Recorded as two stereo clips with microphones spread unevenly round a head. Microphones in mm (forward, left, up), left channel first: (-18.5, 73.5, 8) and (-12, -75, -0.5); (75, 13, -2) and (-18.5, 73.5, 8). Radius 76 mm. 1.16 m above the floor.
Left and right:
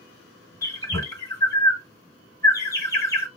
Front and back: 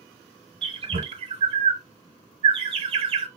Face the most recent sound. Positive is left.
turn(degrees=150)